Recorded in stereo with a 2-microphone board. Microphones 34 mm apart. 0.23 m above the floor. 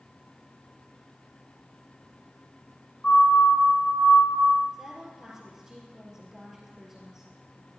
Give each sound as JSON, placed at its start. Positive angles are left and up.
{"t": 3.0, "sound": "a siren", "side_deg": 35, "distance_m": 4.0}
{"t": 4.7, "sound": "a woman speaking", "side_deg": -15, "distance_m": 4.0}